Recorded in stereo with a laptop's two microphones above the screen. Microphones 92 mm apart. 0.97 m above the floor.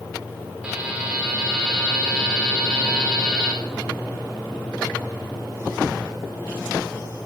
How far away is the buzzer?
About 1.7 m.